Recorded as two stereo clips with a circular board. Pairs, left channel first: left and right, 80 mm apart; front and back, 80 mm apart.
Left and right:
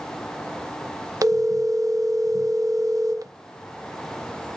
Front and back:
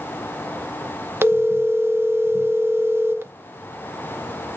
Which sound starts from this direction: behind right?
A phone ringing, at 1.2 s.